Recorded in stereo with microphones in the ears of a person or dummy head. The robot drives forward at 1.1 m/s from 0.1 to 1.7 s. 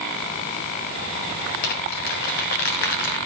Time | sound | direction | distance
1.6 | crumpling | 45° left (ahead or behind) | 0.6 m